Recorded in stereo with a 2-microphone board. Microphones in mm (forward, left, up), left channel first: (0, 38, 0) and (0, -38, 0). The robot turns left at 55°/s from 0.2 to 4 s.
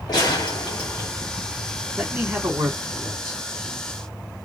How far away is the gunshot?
About 2 m.